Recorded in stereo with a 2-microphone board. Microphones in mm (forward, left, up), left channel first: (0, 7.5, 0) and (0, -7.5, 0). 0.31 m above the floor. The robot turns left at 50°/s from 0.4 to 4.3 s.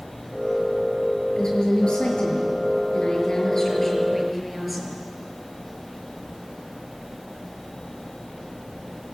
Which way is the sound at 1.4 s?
135° left.